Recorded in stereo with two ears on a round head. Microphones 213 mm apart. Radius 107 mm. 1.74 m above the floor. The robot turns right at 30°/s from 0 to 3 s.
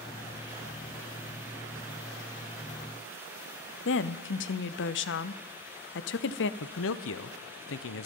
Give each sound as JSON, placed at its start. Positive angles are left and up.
{"t": 3.9, "sound": "a woman speaking", "side_deg": 50, "distance_m": 0.6}
{"t": 6.6, "sound": "a man speaking", "side_deg": 60, "distance_m": 0.7}